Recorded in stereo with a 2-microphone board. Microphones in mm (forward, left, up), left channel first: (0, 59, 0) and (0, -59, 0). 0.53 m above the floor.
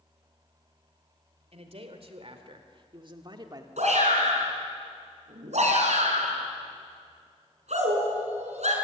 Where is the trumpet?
No trumpet in this recording.